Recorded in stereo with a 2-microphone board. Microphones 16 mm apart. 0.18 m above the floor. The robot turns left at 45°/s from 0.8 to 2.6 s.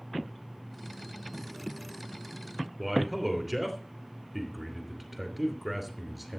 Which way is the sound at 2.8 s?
5° right (ahead or behind).